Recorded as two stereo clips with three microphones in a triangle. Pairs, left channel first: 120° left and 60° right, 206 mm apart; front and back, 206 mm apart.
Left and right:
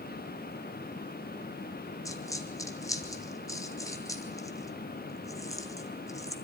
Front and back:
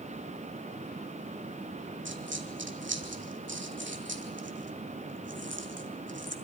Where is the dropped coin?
165° right, 1.4 m.